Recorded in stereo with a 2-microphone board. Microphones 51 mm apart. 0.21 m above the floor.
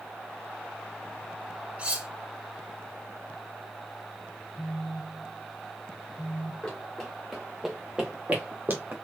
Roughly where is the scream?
I don't hear a scream.